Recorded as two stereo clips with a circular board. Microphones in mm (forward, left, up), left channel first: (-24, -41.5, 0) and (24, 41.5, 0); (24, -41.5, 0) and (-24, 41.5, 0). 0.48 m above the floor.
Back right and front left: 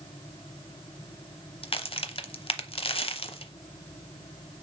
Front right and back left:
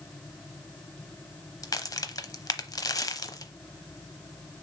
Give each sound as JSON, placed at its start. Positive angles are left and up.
{"t": 1.6, "sound": "a crack", "azimuth_deg": -110, "distance_m": 0.7}